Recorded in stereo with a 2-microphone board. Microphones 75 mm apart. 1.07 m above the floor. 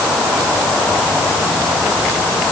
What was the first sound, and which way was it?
Only background noise.